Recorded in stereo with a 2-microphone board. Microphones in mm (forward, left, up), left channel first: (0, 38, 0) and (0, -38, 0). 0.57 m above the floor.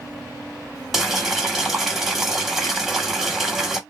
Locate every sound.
0.9 s boiling: centre (ahead or behind), 0.8 m